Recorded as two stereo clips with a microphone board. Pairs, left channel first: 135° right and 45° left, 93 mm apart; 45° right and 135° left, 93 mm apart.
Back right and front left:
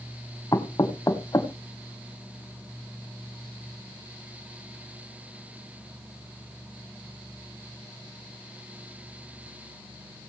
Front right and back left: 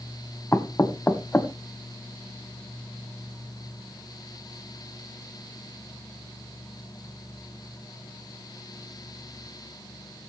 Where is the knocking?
105° right, 1.1 m.